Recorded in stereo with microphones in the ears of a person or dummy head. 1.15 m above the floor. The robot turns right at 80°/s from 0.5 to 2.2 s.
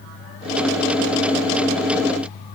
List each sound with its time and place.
Only background noise.